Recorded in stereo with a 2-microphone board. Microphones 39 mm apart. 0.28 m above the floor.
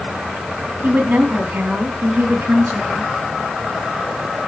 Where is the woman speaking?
50° right (ahead or behind), 2.5 m; by 3.1 s 70° right (ahead or behind), 4.5 m.